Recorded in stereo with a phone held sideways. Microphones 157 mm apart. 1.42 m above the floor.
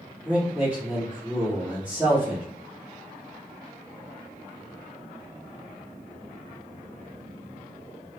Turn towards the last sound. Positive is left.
turn(degrees=-10)  # may be behind; listen again after turning